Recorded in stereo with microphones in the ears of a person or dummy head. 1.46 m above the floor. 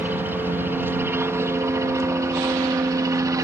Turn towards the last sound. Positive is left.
turn(degrees=-20)  # may be behind; listen again after turning